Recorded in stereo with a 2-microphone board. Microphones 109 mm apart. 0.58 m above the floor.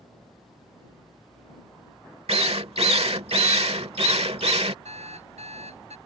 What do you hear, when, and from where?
2.3 s a drill: 65° right (ahead or behind)
4.8 s an alarm clock: 85° right